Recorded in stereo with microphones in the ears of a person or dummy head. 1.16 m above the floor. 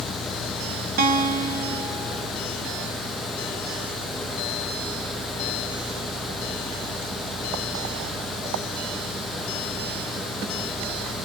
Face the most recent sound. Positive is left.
turn(degrees=-45)  # may be behind; listen again after turning